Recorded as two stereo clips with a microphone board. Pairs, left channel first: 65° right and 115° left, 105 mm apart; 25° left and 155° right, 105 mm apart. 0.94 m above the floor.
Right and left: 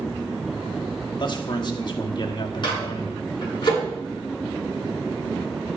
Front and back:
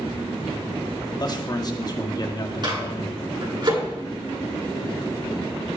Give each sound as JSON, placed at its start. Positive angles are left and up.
{"t": 1.2, "sound": "a man speaking", "azimuth_deg": -25, "distance_m": 1.6}
{"t": 2.6, "sound": "a microwave", "azimuth_deg": -110, "distance_m": 9.0}